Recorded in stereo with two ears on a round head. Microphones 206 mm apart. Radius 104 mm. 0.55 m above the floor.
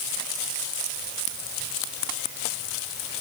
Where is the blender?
No blender in this recording.